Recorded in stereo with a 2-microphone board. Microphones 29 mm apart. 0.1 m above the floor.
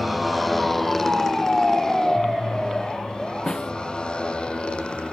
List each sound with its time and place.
0.0 s a motorcycle: centre (ahead or behind); by 5.1 s 40° left (ahead or behind)
3.5 s a snare drum: 30° left (ahead or behind)